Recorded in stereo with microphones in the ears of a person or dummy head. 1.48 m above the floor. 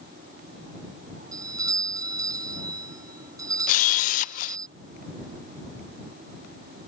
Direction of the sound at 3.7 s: 45° left (ahead or behind).